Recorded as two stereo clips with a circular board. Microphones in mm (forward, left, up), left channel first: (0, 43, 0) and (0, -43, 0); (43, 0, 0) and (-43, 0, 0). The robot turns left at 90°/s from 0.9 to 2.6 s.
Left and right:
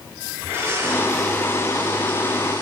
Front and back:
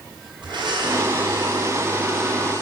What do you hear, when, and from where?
0.4 s a blender: 155° right, 7.5 m; by 2.6 s 55° left, 7.5 m